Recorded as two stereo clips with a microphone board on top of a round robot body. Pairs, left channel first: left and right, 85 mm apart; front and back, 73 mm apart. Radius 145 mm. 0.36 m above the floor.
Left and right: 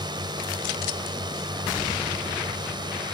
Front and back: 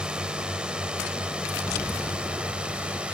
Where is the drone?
105° right.